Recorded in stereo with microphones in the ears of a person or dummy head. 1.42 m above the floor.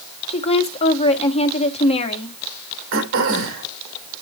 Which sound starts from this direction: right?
Throat clearing, at 2.9 s.